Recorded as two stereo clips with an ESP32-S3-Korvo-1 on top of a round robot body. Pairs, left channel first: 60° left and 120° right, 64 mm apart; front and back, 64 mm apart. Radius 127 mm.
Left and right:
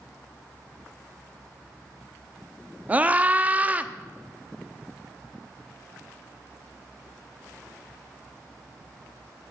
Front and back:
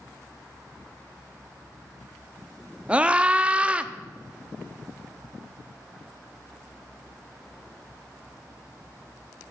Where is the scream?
140° right, 0.9 m.